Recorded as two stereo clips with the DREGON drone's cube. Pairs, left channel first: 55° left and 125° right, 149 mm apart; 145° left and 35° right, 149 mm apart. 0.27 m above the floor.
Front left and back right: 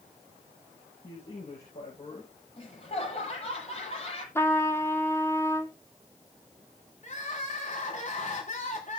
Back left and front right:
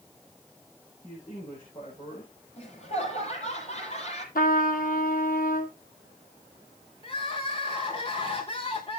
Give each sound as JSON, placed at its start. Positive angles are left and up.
{"t": 1.0, "sound": "a man speaking", "azimuth_deg": 100, "distance_m": 9.0}
{"t": 2.6, "sound": "laughter", "azimuth_deg": 105, "distance_m": 8.5}
{"t": 4.3, "sound": "a trumpet", "azimuth_deg": 130, "distance_m": 2.5}
{"t": 7.0, "sound": "crying", "azimuth_deg": 95, "distance_m": 4.5}